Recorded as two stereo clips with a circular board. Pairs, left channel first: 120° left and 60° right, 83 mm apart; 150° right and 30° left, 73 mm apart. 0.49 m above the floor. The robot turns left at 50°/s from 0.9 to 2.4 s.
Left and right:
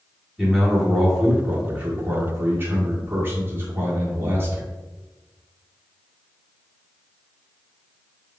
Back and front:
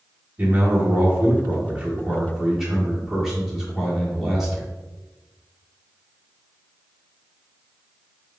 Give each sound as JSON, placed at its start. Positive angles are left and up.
{"t": 0.4, "sound": "a man speaking", "azimuth_deg": 30, "distance_m": 1.4}